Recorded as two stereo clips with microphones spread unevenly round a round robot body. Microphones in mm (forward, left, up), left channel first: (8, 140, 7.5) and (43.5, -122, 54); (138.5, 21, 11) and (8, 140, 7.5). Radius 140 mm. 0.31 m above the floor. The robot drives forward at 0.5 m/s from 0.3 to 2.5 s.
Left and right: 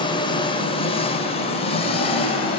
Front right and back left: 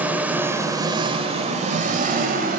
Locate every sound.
0.0 s an engine running: 65° left, 1.0 m; by 2.6 s 155° left, 1.3 m